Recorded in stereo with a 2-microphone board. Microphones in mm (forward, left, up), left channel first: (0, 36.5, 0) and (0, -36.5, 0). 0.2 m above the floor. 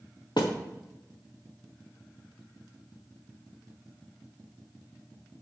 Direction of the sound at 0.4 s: 80° left.